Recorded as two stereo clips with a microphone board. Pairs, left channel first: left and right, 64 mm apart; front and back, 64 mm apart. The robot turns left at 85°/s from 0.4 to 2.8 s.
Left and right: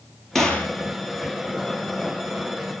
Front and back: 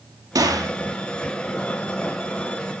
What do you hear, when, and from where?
0.3 s a gunshot: 175° left, 2.5 m; by 0.7 s 150° left, 2.5 m